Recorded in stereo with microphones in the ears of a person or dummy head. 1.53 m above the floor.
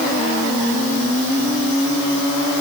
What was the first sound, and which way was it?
Only background noise.